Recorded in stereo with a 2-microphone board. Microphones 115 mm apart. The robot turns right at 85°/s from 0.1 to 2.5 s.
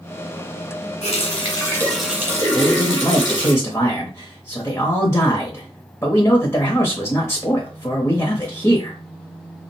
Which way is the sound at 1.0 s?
95° left.